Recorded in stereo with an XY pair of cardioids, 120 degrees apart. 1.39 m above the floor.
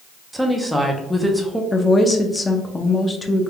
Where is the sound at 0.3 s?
Straight ahead, 0.8 m.